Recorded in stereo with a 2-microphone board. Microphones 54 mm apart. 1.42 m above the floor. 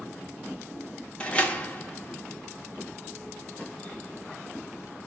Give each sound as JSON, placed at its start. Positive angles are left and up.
{"t": 1.2, "sound": "a door slam", "side_deg": 20, "distance_m": 0.6}